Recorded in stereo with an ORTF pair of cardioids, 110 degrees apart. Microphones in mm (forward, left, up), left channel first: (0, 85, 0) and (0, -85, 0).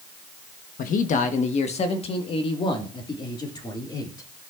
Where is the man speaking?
55° left, 1.1 m; by 4.3 s 20° left, 2.5 m.